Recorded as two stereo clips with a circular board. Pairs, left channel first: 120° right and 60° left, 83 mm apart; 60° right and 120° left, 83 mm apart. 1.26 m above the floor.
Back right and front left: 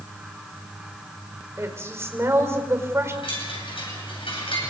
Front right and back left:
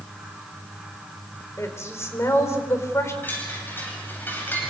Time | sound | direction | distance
1.6 | a woman speaking | straight ahead | 4.5 m
3.2 | a chime | 130° right | 9 m